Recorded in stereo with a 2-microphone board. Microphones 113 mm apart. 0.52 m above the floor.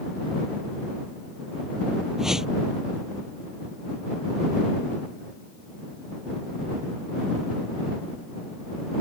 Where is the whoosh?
5° right (ahead or behind).